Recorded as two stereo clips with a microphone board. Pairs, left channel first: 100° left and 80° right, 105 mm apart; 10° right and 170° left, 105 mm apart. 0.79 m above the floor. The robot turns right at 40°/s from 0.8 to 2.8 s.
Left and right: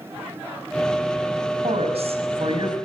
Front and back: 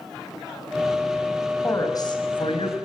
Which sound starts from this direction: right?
A woman speaking, at 1.6 s.